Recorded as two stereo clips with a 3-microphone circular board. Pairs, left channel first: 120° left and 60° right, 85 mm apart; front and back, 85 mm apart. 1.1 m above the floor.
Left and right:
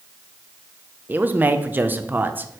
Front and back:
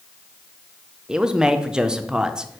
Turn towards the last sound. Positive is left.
turn(degrees=-105)